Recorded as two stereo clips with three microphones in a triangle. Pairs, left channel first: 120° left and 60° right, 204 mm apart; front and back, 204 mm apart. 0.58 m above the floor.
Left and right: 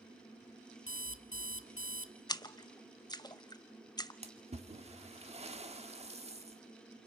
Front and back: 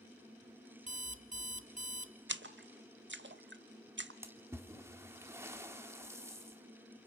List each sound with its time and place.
0.9 s an alarm clock: 125° left, 0.8 m
2.3 s a splash: 170° right, 0.6 m
4.2 s a splash: 110° right, 1.3 m